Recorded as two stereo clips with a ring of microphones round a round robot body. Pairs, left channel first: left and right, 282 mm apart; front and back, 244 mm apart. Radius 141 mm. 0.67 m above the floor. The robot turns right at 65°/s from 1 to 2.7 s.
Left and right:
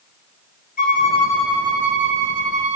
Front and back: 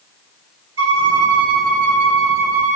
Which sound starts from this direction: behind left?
A violin, at 0.8 s.